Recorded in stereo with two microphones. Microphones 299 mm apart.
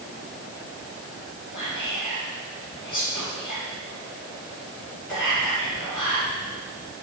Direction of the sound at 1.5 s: 85° left.